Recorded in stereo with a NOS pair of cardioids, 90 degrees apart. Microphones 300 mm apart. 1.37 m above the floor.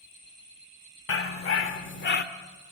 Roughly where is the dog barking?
Ahead left.